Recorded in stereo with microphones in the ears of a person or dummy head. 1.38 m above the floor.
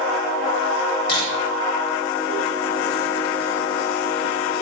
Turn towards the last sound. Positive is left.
turn(degrees=55)  # may be behind; listen again after turning